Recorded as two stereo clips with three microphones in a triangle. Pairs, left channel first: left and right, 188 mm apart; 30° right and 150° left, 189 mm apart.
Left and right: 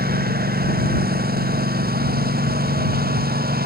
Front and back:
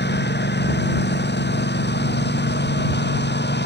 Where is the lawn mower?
55° right.